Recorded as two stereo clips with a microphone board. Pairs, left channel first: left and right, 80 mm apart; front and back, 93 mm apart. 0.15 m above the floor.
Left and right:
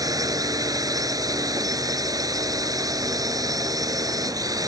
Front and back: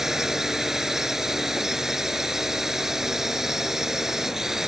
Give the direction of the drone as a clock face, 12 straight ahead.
3 o'clock.